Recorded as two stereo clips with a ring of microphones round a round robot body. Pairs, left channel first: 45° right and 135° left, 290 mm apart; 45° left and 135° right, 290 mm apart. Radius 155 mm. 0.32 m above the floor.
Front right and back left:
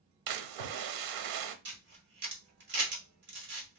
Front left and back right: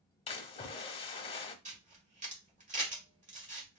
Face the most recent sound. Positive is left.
turn(degrees=170)